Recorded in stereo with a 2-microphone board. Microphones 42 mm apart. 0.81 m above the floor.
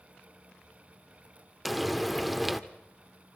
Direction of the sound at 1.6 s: Centre (ahead or behind).